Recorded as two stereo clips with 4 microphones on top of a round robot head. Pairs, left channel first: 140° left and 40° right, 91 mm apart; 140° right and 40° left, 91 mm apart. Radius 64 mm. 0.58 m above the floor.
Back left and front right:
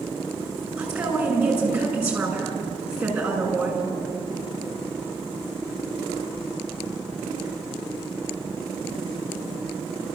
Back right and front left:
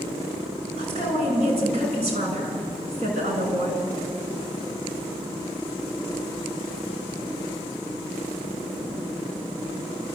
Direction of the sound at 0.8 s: 40° left.